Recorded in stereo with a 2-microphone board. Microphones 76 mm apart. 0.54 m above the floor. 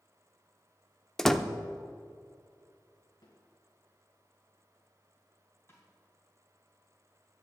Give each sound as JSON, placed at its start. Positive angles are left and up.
{"t": 1.2, "sound": "a door slam", "side_deg": 5, "distance_m": 0.6}
{"t": 3.2, "sound": "a snare drum", "side_deg": 70, "distance_m": 3.5}
{"t": 5.7, "sound": "a snare drum", "side_deg": 35, "distance_m": 3.5}